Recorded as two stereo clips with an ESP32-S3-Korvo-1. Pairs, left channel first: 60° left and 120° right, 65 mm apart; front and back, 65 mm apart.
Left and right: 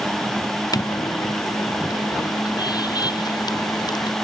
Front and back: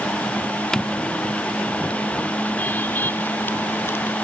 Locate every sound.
0.7 s footsteps: 85° left; by 4.2 s 55° left